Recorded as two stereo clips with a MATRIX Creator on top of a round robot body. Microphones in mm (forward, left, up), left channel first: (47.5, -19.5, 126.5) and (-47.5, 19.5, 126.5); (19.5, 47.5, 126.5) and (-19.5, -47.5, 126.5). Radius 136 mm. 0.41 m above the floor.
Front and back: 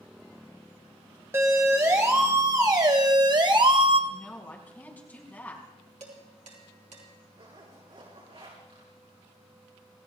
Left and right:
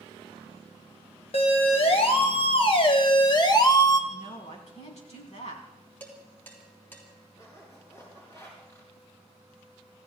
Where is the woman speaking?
55° left, 4 m.